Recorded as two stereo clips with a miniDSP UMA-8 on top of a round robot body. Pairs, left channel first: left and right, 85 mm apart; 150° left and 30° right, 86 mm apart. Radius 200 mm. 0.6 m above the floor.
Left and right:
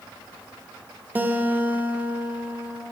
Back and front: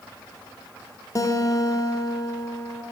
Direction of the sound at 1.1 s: 160° right.